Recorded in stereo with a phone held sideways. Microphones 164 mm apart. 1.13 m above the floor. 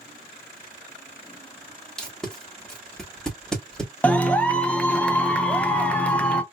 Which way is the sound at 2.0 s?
5° left (ahead or behind).